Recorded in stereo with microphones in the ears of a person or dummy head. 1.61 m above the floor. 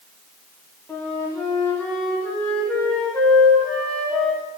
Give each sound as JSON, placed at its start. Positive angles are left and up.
{"t": 0.9, "sound": "a flute", "side_deg": 10, "distance_m": 1.4}